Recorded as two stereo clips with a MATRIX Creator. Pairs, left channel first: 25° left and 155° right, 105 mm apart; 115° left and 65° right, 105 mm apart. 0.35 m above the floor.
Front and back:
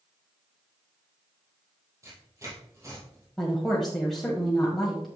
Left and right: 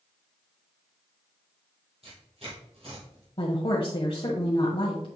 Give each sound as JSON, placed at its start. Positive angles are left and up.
{"t": 2.0, "sound": "tearing paper", "azimuth_deg": -95, "distance_m": 3.5}
{"t": 3.4, "sound": "a woman speaking", "azimuth_deg": 110, "distance_m": 1.4}